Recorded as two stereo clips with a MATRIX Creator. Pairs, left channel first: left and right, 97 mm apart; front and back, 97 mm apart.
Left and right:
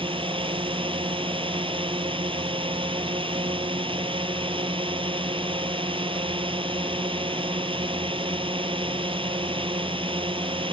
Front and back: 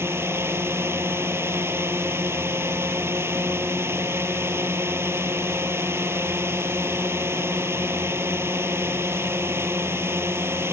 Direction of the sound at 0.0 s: 115° right.